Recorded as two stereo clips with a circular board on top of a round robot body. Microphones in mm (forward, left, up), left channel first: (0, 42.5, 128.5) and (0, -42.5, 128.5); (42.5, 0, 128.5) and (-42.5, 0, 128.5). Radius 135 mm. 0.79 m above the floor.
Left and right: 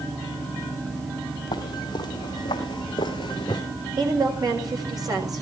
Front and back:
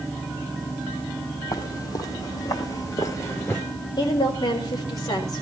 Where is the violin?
I don't hear a violin.